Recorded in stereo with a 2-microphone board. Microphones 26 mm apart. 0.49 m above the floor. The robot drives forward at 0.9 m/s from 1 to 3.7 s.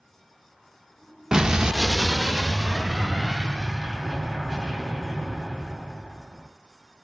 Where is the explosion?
25° right (ahead or behind), 0.6 m; by 6.5 s 5° right (ahead or behind), 2.5 m.